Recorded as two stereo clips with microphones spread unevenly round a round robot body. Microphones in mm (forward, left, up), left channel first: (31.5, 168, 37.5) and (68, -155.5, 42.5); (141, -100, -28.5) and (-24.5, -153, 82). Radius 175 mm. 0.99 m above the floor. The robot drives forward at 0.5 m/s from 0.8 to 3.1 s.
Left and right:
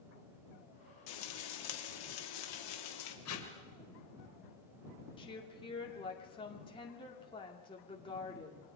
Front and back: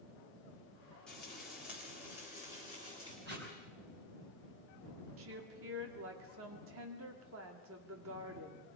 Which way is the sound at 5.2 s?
170° left.